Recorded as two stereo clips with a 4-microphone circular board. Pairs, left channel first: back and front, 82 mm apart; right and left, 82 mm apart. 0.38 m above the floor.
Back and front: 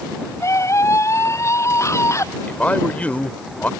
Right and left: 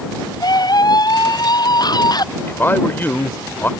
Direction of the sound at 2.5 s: 125° right.